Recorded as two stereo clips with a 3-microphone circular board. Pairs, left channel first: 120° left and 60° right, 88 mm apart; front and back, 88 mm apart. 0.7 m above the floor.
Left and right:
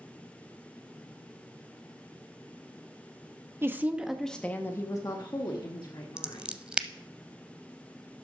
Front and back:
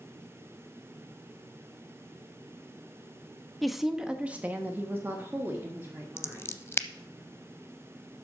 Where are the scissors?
5° left, 0.5 m.